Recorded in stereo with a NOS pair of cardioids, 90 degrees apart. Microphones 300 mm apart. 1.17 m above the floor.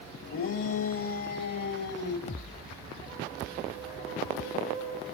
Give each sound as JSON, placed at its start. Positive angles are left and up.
{"t": 0.3, "sound": "a shout", "azimuth_deg": 45, "distance_m": 2.0}
{"t": 2.3, "sound": "a thud", "azimuth_deg": 25, "distance_m": 1.5}